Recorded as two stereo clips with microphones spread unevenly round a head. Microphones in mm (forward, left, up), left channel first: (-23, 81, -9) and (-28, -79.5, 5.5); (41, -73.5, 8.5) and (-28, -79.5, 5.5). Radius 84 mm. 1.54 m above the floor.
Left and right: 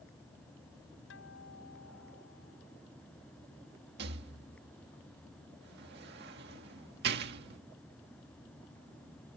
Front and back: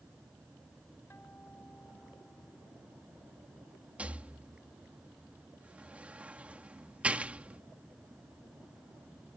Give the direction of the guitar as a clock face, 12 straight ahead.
9 o'clock.